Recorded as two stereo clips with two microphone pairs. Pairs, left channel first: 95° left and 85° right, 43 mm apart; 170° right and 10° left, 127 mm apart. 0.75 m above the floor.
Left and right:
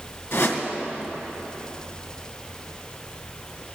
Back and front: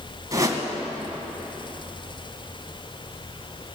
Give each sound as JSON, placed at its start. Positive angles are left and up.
{"t": 0.3, "sound": "a whoosh", "azimuth_deg": 75, "distance_m": 2.0}